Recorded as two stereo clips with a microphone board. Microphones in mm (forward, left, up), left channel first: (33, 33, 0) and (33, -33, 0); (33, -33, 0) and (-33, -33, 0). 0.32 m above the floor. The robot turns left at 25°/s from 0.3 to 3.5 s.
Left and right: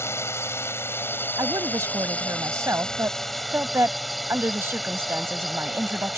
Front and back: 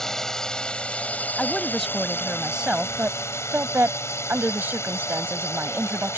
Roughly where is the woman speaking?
Right.